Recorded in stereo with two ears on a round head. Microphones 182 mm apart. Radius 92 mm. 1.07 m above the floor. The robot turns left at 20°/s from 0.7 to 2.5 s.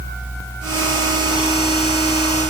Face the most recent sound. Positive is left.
No sound to turn to.